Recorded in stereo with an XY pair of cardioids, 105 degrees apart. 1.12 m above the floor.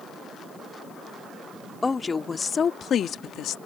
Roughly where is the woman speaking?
Ahead.